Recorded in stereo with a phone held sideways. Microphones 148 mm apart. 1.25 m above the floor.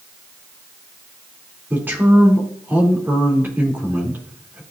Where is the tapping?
I don't hear tapping.